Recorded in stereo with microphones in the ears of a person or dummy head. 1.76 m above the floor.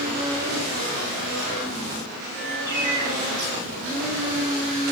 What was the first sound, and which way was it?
A bird, 55° right (ahead or behind).